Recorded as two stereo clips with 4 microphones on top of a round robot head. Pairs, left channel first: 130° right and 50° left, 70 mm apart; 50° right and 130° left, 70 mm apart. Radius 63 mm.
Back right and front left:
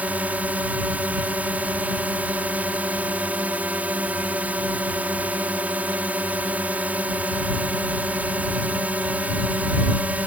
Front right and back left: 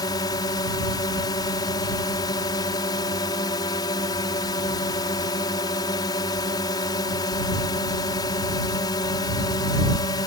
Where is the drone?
25° right.